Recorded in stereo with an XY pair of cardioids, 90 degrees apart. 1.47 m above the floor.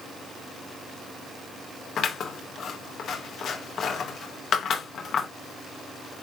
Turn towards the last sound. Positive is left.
turn(degrees=65)